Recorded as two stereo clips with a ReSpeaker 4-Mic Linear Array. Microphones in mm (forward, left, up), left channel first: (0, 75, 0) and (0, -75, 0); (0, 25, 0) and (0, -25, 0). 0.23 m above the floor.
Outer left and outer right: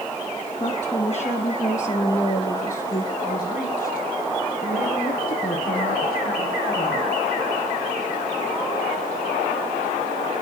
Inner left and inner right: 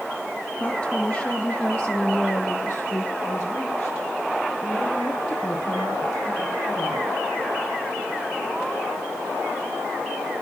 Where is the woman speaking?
40° left (ahead or behind), 3 m; by 7.2 s 80° left, 6.5 m.